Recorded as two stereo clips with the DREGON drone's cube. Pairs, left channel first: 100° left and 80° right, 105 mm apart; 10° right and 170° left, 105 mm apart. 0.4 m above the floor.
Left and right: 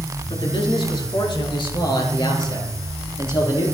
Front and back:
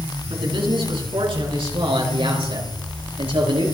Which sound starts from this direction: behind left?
A man speaking, at 0.3 s.